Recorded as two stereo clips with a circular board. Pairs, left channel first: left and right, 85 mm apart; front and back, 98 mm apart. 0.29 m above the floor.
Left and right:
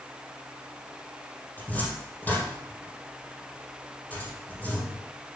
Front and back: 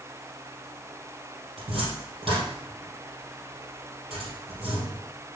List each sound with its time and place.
1.6 s a cupboard door: 160° left, 3.5 m